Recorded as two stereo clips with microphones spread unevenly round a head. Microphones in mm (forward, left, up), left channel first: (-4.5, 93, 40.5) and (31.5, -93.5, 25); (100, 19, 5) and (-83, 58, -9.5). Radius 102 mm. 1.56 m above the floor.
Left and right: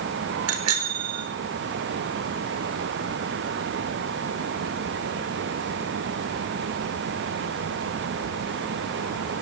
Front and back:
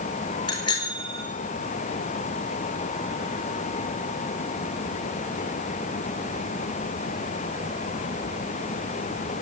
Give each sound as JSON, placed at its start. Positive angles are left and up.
{"t": 0.5, "sound": "a bicycle bell", "azimuth_deg": -80, "distance_m": 4.5}